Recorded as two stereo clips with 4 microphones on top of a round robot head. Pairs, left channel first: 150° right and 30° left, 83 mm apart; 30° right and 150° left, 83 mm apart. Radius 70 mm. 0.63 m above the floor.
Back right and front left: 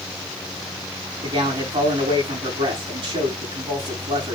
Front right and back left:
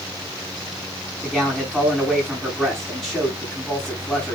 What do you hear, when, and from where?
1.2 s a man speaking: 55° left, 7 m